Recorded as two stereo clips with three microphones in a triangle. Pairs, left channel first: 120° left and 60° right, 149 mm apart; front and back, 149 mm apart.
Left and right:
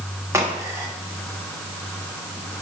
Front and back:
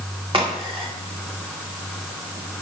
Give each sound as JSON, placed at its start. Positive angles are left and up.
{"t": 0.3, "sound": "a crack", "azimuth_deg": -130, "distance_m": 1.7}